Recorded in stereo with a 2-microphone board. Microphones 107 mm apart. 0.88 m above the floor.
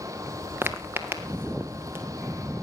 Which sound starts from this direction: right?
Footsteps, at 0.6 s.